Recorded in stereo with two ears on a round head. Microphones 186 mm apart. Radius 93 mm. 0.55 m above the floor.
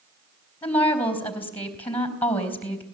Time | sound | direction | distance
0.6 | a woman speaking | 10° left (ahead or behind) | 4 m